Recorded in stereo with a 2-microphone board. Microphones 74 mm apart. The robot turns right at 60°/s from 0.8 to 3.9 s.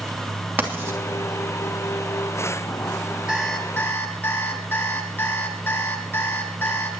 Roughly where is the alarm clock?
Ahead.